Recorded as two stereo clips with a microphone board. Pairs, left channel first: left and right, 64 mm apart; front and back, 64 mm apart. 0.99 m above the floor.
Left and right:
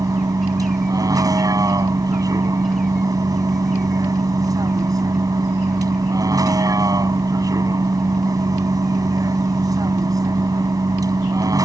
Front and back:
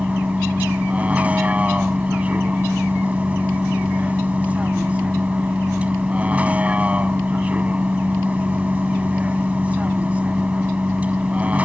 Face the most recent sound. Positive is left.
turn(degrees=-110)